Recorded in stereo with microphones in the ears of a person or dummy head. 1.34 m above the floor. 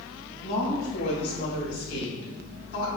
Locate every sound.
0.4 s a woman speaking: 55° left (ahead or behind), 1.6 m; by 2.9 s 80° left, 2.5 m